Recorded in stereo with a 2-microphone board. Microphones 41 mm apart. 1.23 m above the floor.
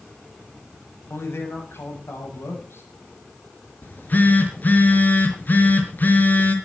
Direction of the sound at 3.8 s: 45° left (ahead or behind).